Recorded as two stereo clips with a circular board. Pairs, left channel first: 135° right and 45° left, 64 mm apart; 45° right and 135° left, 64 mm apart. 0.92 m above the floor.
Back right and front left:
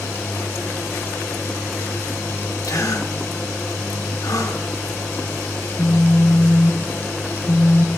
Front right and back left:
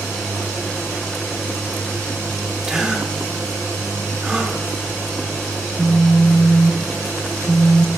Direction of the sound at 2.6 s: 145° right.